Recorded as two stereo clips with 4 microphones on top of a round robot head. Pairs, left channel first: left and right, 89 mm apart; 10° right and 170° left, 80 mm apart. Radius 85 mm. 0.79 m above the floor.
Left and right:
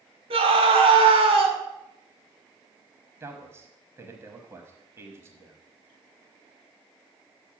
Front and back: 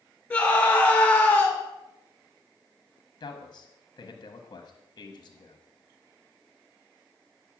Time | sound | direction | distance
0.3 | a scream | 90° right | 2.5 m
3.2 | a man speaking | 30° right | 1.0 m